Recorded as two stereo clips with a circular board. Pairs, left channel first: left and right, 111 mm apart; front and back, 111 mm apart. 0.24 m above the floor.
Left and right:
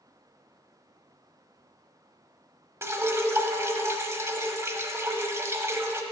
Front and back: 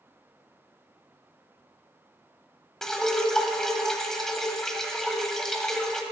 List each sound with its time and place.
2.8 s dripping: 80° right, 1.0 m